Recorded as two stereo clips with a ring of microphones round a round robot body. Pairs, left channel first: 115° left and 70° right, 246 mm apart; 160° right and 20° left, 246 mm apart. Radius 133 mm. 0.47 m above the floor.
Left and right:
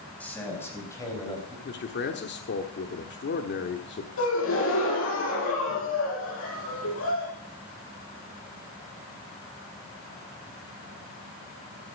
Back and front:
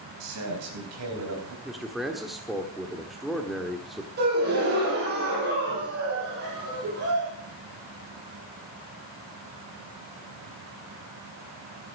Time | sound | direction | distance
0.2 | a man speaking | 30° left | 4.5 m
1.6 | a man speaking | 110° left | 1.2 m
4.2 | a gasp | 75° left | 7.5 m